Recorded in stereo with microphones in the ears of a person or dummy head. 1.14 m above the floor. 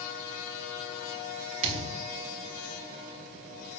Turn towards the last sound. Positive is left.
turn(degrees=-35)  # may be behind; listen again after turning